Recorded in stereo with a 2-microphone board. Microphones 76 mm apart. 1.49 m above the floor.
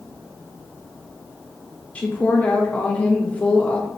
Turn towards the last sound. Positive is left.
turn(degrees=20)  # may be behind; listen again after turning